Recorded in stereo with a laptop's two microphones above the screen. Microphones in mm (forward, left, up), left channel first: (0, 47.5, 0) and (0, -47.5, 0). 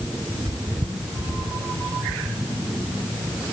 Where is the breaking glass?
No breaking glass in this recording.